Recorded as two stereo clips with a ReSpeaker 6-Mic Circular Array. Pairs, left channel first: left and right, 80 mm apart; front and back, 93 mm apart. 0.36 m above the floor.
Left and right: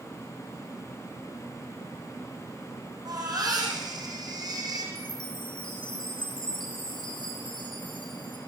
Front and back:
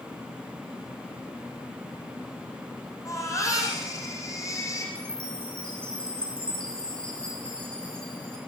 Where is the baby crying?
55° right, 9 m.